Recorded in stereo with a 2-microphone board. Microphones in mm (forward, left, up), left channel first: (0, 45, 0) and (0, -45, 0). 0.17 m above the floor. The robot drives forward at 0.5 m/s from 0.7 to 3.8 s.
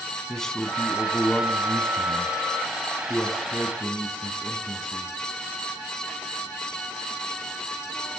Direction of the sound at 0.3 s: 5° left (ahead or behind).